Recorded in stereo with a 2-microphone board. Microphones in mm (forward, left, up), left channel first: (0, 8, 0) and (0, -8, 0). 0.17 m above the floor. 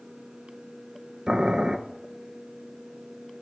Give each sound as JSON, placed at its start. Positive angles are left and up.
{"t": 1.3, "sound": "boiling", "side_deg": -65, "distance_m": 0.5}